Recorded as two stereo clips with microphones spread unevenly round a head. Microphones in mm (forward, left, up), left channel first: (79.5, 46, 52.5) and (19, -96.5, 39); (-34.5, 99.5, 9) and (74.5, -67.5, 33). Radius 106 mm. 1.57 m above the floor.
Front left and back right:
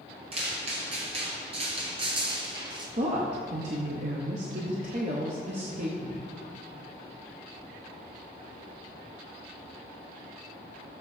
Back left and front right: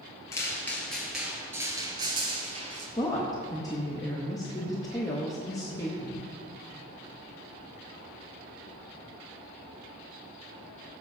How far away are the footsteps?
About 1.8 m.